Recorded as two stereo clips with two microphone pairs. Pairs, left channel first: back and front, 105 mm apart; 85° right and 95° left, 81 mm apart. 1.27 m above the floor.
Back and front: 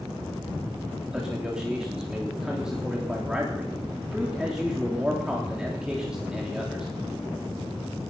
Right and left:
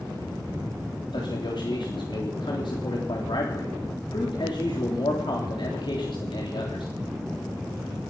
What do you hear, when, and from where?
1.1 s a man speaking: 85° right, 3.5 m